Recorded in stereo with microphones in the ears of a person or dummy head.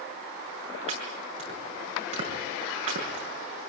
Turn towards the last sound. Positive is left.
turn(degrees=-40)  # may be behind; listen again after turning